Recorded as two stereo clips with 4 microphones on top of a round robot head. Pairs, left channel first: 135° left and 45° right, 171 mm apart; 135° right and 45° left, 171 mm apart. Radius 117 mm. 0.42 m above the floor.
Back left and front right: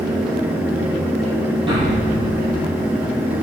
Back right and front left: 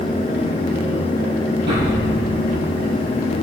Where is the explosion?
20° left, 10 m.